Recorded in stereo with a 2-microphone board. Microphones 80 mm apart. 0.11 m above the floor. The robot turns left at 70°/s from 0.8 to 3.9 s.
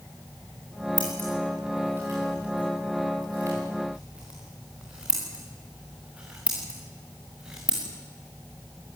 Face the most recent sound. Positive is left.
turn(degrees=-15)  # may be behind; listen again after turning